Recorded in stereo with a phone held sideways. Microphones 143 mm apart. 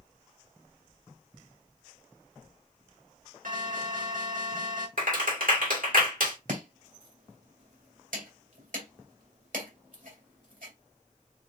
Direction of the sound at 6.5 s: 70° right (ahead or behind).